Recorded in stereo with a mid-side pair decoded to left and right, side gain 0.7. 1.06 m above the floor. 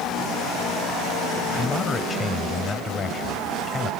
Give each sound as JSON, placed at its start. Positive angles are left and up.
{"t": 1.6, "sound": "a man speaking", "azimuth_deg": 25}